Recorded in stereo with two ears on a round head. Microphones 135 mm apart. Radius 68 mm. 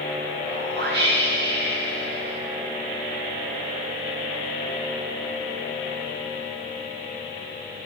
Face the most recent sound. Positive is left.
turn(degrees=-80)